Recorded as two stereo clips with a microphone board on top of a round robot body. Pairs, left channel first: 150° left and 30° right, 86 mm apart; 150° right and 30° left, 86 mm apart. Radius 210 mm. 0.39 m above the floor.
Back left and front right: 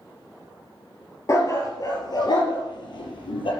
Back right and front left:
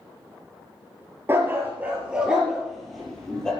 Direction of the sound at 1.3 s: 95° left.